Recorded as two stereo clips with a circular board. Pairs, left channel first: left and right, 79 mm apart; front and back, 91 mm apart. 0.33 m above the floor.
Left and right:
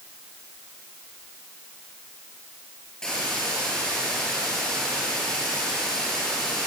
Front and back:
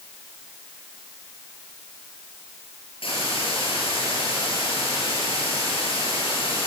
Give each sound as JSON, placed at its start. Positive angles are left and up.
{"t": 3.0, "sound": "a hiss", "azimuth_deg": 10, "distance_m": 7.0}